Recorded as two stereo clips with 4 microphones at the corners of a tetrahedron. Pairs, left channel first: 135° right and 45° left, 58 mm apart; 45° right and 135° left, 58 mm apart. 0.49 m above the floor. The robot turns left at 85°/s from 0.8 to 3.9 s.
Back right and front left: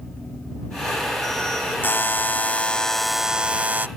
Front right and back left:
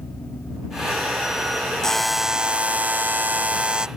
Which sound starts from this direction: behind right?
A buzzer, at 1.8 s.